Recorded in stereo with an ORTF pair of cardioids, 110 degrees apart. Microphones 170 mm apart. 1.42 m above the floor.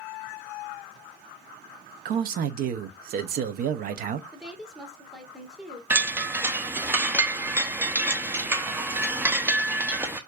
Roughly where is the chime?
Ahead.